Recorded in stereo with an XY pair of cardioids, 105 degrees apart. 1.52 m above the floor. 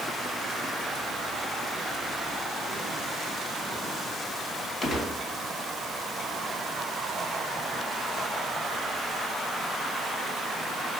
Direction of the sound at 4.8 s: 40° left.